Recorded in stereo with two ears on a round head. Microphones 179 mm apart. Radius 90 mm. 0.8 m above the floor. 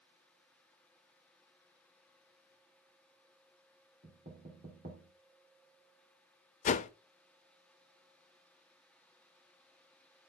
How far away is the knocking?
About 2.5 m.